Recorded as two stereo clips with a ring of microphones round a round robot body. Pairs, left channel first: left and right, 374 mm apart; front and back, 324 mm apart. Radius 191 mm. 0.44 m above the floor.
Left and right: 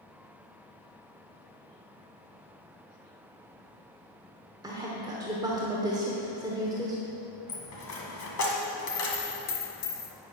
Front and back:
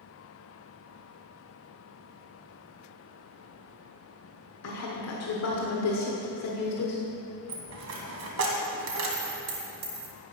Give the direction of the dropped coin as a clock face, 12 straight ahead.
7 o'clock.